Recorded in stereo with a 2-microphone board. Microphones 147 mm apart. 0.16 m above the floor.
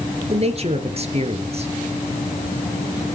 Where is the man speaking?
45° right (ahead or behind), 2.5 m.